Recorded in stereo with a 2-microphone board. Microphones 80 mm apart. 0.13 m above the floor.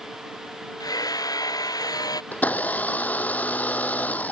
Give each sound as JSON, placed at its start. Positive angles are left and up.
{"t": 0.8, "sound": "hammering", "side_deg": 50}
{"t": 2.3, "sound": "a blender", "side_deg": 20}